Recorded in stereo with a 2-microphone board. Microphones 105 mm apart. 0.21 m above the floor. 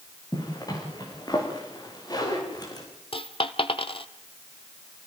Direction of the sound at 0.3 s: 40° left (ahead or behind).